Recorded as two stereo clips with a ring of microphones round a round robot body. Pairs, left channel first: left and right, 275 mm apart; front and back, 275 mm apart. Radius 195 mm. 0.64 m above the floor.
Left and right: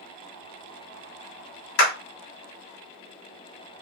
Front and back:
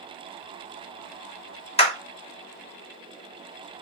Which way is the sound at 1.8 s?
65° left.